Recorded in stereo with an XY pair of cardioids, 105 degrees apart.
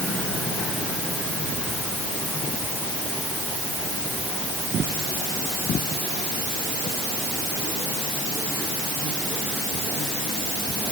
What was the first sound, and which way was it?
Only background noise.